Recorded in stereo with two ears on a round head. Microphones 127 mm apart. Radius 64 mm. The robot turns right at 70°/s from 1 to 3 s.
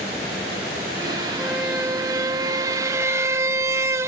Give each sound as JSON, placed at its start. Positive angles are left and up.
{"t": 1.4, "sound": "a squeak", "side_deg": -5, "distance_m": 0.7}